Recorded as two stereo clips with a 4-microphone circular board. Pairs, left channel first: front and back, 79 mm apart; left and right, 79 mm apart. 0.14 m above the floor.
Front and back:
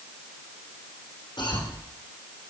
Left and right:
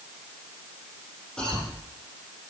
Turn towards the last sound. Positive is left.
turn(degrees=10)